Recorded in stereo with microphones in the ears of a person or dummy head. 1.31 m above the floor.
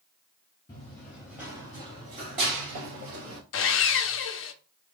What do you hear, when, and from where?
0.7 s running footsteps: 15° left (ahead or behind), 1.5 m; by 3.4 s 55° right (ahead or behind), 2 m
3.5 s sawing: 55° left (ahead or behind), 0.5 m